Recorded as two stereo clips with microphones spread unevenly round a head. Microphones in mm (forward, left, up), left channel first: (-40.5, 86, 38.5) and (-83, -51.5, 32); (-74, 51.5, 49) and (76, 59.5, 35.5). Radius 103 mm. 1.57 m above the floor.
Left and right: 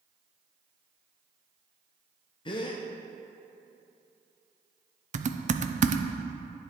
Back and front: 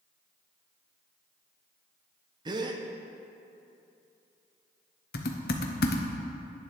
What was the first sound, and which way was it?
A gasp, 50° left.